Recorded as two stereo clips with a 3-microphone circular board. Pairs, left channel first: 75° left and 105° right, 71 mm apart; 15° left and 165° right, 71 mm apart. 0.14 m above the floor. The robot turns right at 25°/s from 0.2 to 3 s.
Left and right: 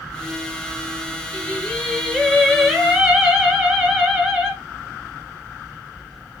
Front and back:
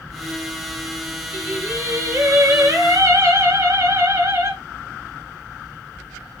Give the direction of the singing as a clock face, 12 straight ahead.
7 o'clock.